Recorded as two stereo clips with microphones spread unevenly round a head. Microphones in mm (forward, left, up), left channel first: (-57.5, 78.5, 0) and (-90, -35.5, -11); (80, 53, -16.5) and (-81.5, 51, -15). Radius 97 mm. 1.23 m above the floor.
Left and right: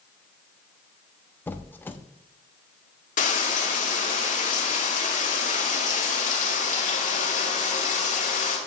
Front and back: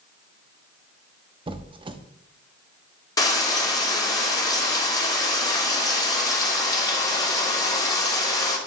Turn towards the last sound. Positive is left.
turn(degrees=70)